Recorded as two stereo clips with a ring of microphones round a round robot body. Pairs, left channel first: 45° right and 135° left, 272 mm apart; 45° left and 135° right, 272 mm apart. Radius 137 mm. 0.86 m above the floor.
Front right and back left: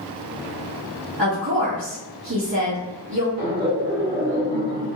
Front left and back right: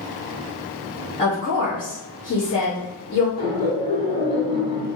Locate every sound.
1.2 s a woman speaking: 115° left, 1.2 m
3.4 s laughter: 110° left, 1.8 m